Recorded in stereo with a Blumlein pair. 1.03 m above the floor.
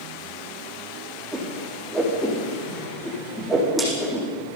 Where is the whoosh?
15° right, 7.5 m.